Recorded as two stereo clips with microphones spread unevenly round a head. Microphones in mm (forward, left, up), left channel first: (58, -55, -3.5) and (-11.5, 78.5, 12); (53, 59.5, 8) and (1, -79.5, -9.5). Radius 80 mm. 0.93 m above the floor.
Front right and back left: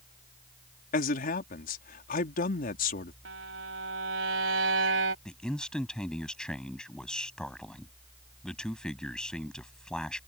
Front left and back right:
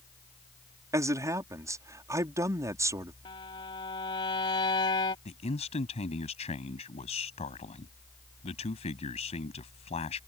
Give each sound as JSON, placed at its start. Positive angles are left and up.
{"t": 0.9, "sound": "a man speaking", "azimuth_deg": -45}
{"t": 3.2, "sound": "a violin", "azimuth_deg": 130}
{"t": 5.2, "sound": "a man speaking", "azimuth_deg": 25}